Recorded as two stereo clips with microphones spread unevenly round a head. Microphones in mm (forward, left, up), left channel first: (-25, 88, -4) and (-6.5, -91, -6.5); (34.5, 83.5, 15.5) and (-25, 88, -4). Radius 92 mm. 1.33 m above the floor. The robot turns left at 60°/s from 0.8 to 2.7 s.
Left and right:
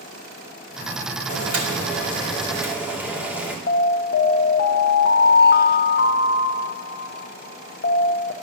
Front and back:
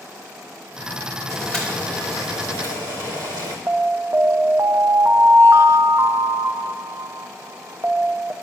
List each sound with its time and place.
1.3 s boiling: 80° right, 2.5 m; by 3.6 s 165° right, 2.5 m
3.7 s an alarm: 130° left, 0.8 m